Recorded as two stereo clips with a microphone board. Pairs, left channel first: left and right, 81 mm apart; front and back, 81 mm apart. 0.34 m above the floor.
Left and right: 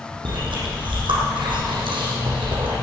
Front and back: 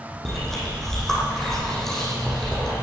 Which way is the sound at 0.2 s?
85° right.